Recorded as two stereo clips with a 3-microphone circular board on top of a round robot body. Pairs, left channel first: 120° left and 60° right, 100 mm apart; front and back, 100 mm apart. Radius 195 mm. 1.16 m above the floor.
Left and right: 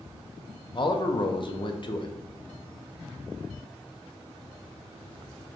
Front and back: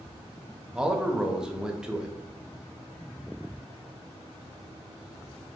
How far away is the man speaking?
About 0.8 m.